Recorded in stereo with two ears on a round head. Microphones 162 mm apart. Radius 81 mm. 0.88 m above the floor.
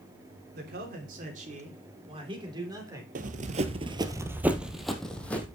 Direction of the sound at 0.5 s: 60° right (ahead or behind).